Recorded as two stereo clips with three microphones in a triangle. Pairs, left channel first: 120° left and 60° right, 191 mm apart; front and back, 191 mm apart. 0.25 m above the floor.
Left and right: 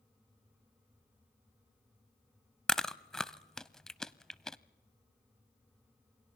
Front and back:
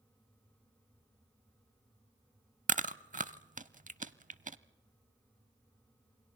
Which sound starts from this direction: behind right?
Chewing, at 2.7 s.